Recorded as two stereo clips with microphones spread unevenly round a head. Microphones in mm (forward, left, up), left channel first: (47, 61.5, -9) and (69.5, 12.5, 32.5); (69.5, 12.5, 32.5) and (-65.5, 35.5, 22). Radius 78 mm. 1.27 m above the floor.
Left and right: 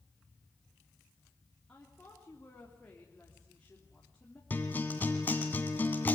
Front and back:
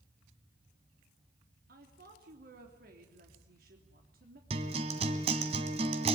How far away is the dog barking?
No dog barking in this recording.